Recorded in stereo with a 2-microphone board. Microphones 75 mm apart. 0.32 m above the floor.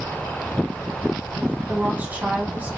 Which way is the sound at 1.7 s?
20° right (ahead or behind).